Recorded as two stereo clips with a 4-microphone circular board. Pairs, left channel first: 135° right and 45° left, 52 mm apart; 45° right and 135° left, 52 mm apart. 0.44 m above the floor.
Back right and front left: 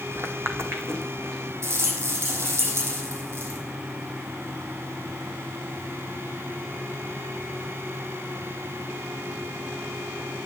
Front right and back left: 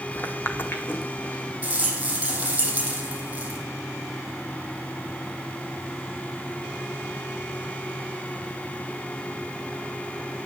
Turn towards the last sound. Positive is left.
turn(degrees=70)